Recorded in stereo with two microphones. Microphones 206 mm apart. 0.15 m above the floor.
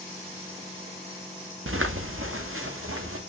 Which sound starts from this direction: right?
Footsteps, at 1.7 s.